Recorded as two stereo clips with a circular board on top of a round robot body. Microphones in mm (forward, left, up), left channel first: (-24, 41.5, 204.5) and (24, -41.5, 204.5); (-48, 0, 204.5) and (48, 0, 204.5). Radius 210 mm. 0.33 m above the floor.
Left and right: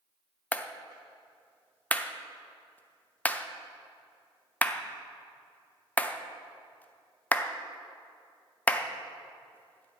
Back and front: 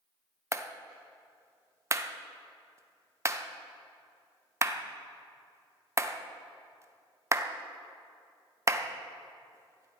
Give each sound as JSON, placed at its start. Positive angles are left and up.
{"t": 0.5, "sound": "a clap", "azimuth_deg": 50, "distance_m": 1.0}